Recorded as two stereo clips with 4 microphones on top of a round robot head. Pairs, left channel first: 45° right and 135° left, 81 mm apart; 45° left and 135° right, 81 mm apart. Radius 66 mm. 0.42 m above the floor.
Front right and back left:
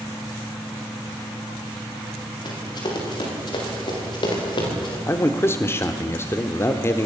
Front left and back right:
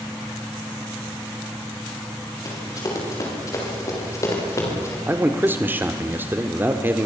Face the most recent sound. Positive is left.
turn(degrees=-85)